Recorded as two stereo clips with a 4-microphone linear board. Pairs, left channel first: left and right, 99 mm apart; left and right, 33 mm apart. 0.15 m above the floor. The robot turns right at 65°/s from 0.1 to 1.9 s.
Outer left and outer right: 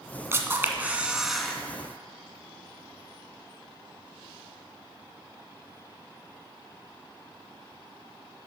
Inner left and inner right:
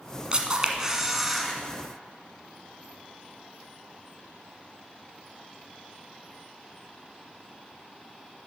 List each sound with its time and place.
0.3 s a camera shutter: 25° right (ahead or behind), 1.2 m; by 1.5 s 5° left (ahead or behind), 1.2 m